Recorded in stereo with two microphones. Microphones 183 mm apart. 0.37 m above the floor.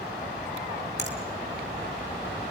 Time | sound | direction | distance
1.0 | a finger snap | 70° left (ahead or behind) | 3.5 m